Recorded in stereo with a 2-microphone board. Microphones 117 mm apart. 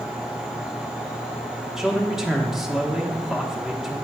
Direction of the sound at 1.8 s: 5° right (ahead or behind).